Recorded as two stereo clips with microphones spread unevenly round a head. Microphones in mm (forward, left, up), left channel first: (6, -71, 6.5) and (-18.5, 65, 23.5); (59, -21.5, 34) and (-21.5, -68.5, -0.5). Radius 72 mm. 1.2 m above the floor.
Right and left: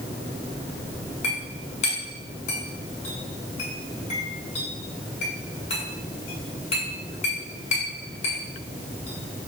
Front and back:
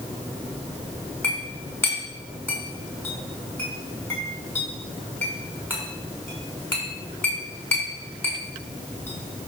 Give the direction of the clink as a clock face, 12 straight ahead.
1 o'clock.